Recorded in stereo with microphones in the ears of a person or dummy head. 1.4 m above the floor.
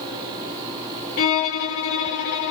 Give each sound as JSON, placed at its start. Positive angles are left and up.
{"t": 1.2, "sound": "a violin", "side_deg": 40, "distance_m": 0.6}